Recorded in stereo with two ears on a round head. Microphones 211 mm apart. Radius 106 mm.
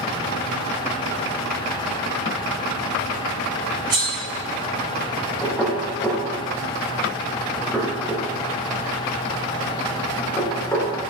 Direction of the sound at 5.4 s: 5° left (ahead or behind).